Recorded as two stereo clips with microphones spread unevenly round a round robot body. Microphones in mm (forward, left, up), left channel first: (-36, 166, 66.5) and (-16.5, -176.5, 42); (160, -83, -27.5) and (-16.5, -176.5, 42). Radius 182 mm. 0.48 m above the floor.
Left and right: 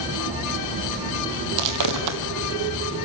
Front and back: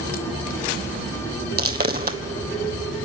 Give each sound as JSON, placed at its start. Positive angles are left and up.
{"t": 1.6, "sound": "footsteps", "azimuth_deg": -125, "distance_m": 1.3}